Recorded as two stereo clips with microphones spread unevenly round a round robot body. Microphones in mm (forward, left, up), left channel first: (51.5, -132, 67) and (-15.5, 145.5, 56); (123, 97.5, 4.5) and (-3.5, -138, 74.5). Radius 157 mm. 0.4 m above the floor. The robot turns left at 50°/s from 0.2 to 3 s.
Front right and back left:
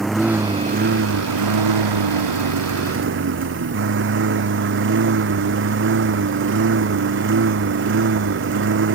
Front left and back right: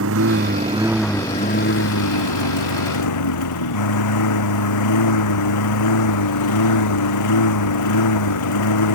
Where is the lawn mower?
165° right; by 8.9 s 55° left.